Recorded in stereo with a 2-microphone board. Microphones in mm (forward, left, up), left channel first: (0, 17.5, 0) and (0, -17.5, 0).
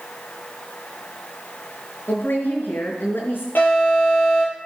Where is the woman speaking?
75° left (ahead or behind), 4.5 m.